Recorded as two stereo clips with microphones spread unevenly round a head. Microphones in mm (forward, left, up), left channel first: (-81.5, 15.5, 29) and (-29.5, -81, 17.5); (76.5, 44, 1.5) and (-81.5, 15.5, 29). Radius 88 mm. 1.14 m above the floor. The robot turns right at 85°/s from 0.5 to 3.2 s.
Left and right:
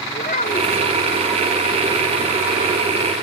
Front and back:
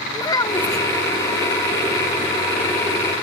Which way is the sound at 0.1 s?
80° left.